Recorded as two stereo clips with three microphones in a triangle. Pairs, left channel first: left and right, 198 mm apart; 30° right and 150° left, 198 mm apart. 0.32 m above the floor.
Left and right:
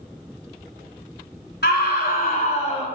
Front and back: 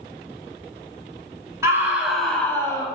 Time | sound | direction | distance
1.6 | a scream | 75° left | 1.9 m